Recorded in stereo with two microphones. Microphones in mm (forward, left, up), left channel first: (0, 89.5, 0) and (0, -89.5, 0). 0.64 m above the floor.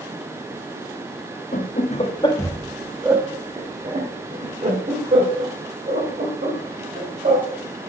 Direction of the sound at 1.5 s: 45° left (ahead or behind).